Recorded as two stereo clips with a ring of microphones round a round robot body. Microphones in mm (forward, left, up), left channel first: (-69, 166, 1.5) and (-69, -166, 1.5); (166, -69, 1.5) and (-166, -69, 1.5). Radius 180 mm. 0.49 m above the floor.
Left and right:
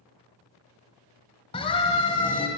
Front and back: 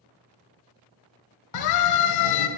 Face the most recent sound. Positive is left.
turn(degrees=15)